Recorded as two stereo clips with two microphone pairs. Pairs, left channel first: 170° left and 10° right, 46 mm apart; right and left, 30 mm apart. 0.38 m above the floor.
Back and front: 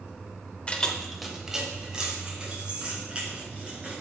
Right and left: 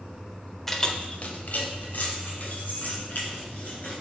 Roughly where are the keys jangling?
Behind right.